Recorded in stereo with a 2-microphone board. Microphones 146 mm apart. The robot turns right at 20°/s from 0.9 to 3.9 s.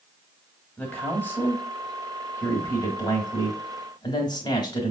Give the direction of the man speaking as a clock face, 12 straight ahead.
11 o'clock.